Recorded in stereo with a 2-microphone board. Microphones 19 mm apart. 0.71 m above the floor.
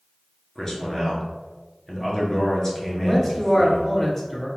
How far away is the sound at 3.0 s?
About 1.5 m.